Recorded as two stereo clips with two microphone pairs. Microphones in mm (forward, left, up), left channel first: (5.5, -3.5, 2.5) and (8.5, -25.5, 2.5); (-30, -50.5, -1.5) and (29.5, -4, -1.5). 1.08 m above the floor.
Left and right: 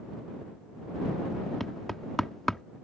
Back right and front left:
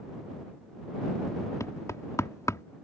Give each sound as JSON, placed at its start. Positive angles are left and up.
{"t": 1.6, "sound": "knocking", "azimuth_deg": 175}